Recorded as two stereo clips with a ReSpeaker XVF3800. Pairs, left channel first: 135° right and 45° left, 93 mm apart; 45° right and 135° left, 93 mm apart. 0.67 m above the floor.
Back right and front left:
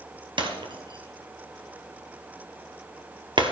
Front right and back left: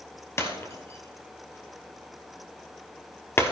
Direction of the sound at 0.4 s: 15° left.